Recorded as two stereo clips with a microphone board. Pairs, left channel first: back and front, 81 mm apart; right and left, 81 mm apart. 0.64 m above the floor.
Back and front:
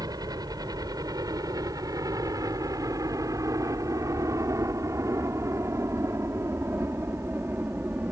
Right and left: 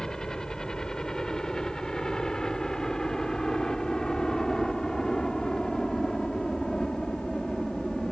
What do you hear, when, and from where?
0.0 s a helicopter: 10° right; by 8.1 s 15° right